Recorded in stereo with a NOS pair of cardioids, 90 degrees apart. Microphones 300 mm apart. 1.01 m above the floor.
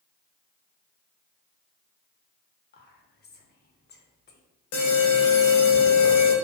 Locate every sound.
2.7 s whispering: 35° left, 0.7 m
4.7 s an alarm: 60° left, 0.8 m